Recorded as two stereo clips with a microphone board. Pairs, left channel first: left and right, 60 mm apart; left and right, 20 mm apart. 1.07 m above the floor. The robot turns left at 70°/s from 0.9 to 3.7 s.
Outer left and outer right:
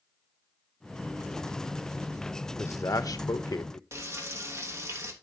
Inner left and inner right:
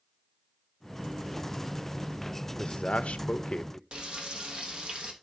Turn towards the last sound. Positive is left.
turn(degrees=-45)  # may be behind; listen again after turning